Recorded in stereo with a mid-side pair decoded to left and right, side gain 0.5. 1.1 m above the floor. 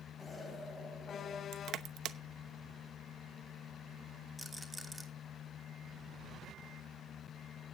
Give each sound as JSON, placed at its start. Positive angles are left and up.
{"t": 0.2, "sound": "an explosion", "azimuth_deg": 25, "distance_m": 6.5}
{"t": 1.5, "sound": "crushing", "azimuth_deg": -60, "distance_m": 0.9}
{"t": 4.4, "sound": "a rattle", "azimuth_deg": -5, "distance_m": 2.5}